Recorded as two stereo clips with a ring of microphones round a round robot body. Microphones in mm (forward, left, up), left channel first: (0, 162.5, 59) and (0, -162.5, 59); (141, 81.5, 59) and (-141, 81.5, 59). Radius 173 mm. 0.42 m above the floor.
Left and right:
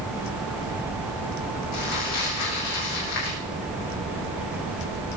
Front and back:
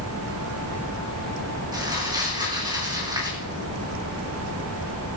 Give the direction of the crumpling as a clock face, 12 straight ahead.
9 o'clock.